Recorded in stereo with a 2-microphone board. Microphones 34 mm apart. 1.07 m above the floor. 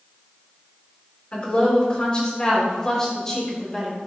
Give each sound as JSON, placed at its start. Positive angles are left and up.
{"t": 1.3, "sound": "a woman speaking", "side_deg": 35, "distance_m": 4.0}